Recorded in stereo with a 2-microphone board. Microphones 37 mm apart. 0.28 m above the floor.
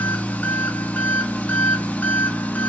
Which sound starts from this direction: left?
An engine running, at 0.0 s.